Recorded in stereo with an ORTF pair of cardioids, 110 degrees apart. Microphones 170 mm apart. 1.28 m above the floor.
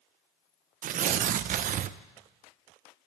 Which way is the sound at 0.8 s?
50° right.